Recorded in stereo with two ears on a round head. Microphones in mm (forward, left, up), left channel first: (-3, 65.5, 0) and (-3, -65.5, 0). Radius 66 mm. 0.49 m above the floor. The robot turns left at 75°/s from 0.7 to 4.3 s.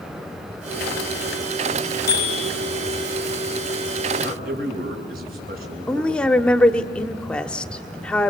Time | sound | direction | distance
2.1 | a bicycle bell | 70° left | 5 m
4.2 | a man speaking | 75° right (ahead or behind) | 6.5 m
5.9 | a woman speaking | 5° left (ahead or behind) | 0.9 m